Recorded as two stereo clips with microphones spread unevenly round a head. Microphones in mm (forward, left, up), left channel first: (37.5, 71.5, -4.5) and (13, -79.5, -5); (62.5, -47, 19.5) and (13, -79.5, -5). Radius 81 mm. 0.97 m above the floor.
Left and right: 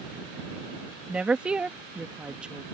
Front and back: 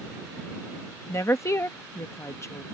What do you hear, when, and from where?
1.1 s a woman speaking: 15° right